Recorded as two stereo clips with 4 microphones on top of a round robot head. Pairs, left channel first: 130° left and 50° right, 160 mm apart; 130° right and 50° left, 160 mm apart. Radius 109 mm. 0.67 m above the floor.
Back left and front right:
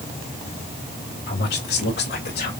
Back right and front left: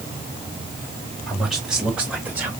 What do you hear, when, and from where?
1.3 s a man speaking: 145° left, 4 m; by 2.5 s 130° left, 3 m